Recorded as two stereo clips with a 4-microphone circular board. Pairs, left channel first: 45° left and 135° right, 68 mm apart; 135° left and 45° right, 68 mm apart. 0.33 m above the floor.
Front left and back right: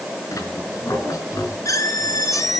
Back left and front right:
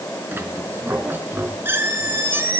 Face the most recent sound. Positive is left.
turn(degrees=10)